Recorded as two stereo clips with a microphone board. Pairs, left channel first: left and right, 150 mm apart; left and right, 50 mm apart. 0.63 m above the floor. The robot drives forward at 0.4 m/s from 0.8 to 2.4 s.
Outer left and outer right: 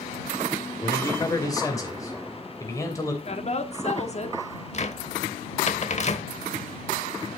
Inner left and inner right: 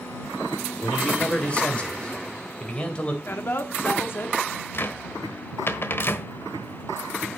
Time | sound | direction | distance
0.8 | a man speaking | 25° left (ahead or behind) | 2.5 m
3.2 | a woman speaking | 45° left (ahead or behind) | 1.4 m
4.7 | a cupboard door | 50° left (ahead or behind) | 1.0 m